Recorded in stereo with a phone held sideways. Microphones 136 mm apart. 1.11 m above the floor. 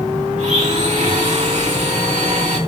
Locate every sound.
0.4 s a blender: 60° right (ahead or behind), 4.5 m